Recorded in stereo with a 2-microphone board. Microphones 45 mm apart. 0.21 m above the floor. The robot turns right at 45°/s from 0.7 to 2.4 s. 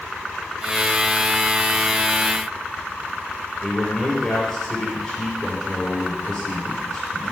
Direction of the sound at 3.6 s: 25° left (ahead or behind).